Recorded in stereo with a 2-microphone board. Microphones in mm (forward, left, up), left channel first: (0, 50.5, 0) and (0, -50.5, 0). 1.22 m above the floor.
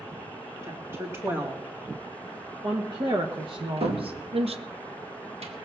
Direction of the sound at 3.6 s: 75° right (ahead or behind).